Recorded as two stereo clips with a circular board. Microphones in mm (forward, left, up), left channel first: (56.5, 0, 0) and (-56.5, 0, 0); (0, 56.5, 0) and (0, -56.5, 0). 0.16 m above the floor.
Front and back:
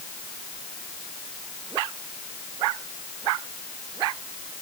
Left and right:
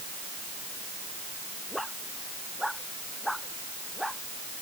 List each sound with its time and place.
Only background noise.